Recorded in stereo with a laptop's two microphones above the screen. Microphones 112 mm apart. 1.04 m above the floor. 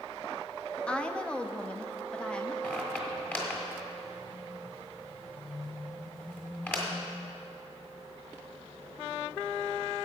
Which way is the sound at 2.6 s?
15° left (ahead or behind).